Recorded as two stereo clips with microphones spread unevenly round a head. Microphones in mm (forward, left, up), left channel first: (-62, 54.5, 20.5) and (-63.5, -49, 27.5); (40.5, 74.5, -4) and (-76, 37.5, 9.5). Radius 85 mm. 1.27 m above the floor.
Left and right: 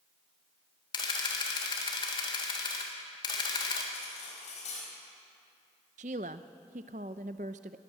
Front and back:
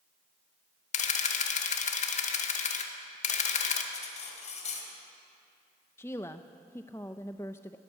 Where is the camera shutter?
35° left, 1.8 m.